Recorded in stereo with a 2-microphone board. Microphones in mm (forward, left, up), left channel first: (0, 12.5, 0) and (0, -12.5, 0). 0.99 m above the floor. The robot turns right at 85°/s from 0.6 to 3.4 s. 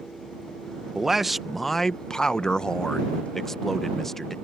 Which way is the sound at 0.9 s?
20° right (ahead or behind).